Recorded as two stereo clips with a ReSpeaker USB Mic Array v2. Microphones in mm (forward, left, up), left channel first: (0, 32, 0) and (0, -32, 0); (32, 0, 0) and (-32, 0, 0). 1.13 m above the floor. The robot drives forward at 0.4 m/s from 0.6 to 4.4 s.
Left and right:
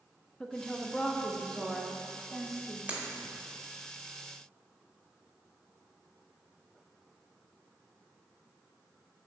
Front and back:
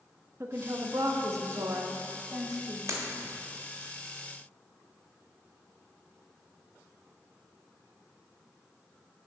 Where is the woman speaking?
165° left, 0.7 m; by 2.8 s 175° left, 1.4 m.